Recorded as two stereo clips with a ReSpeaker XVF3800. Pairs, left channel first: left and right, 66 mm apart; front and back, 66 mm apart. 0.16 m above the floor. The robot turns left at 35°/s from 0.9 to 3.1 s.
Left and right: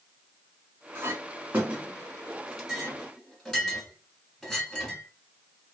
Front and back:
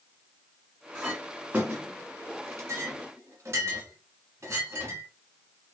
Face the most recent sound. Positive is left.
turn(degrees=170)